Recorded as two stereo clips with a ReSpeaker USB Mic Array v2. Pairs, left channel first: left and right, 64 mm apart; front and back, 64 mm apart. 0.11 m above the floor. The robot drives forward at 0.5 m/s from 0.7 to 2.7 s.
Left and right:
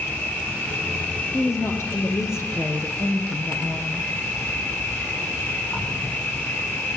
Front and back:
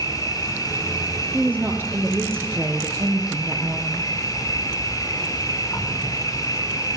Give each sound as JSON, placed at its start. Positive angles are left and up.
{"t": 0.0, "sound": "an insect", "azimuth_deg": 30, "distance_m": 7.0}
{"t": 1.3, "sound": "a woman speaking", "azimuth_deg": 120, "distance_m": 2.5}